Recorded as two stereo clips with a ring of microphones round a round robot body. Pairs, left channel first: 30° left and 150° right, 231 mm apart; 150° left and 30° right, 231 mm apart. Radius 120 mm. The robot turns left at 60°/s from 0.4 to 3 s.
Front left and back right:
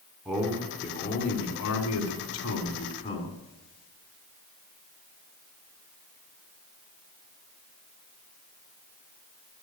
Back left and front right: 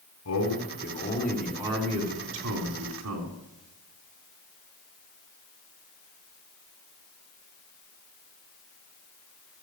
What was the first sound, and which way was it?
A man speaking, 120° left.